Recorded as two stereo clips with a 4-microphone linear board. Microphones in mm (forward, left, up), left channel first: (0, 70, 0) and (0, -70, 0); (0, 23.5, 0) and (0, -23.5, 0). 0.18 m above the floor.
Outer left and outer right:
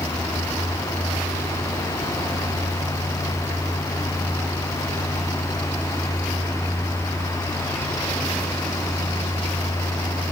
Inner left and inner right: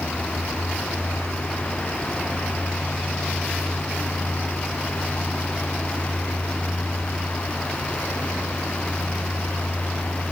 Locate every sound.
Only background noise.